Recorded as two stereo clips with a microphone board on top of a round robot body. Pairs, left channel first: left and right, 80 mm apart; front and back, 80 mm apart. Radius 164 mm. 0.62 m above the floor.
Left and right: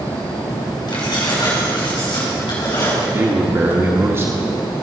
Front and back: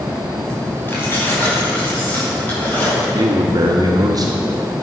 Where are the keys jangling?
60° left, 3.5 m; by 3.0 s 70° left, 5.5 m.